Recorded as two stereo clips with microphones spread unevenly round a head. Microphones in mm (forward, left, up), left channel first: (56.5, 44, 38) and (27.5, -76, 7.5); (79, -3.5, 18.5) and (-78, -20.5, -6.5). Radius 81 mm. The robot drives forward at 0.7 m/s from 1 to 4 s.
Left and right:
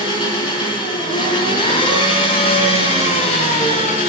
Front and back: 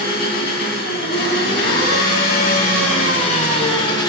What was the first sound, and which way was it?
An engine running, 30° left.